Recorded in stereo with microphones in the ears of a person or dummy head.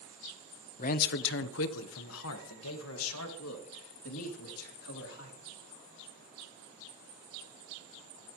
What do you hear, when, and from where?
0.8 s a man speaking: 40° left (ahead or behind), 0.5 m; by 5.4 s 75° left (ahead or behind), 3.5 m